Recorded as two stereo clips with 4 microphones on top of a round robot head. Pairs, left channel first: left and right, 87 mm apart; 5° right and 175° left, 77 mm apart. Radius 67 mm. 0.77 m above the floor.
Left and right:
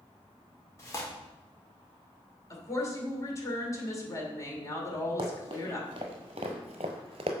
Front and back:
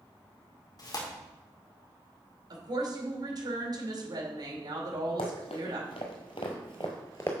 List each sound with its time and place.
0.8 s tearing paper: 25° left, 2.0 m
2.5 s a woman speaking: 140° left, 2.5 m
5.2 s running footsteps: 35° right, 1.8 m; by 7.3 s 75° right, 1.0 m